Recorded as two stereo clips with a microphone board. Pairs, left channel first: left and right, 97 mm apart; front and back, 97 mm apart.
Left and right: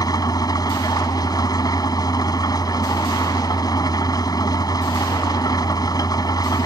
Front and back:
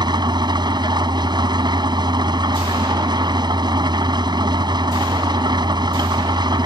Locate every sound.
0.0 s an engine running: 140° left